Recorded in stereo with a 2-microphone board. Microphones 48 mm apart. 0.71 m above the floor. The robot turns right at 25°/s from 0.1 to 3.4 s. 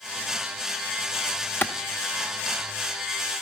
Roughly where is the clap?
Left.